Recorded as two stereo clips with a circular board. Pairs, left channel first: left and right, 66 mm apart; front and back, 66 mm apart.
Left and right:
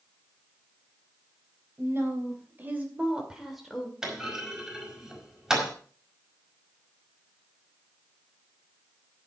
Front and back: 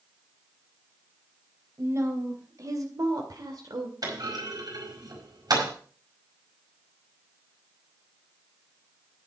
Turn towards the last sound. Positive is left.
turn(degrees=-170)